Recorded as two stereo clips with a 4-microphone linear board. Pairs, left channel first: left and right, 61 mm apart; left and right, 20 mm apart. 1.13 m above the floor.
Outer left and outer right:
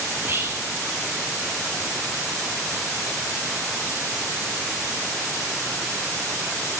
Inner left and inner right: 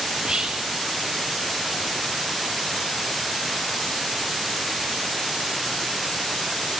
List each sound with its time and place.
0.1 s whispering: 40° right (ahead or behind), 3 m